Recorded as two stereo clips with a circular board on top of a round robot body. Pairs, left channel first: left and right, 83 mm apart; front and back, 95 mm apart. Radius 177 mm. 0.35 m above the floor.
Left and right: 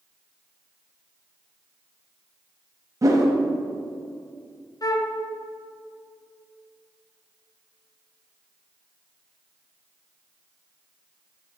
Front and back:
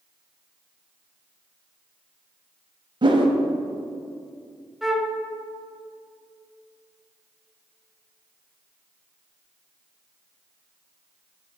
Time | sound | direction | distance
3.0 | a whoosh | 140° right | 0.8 m
4.8 | a flute | 95° left | 1.0 m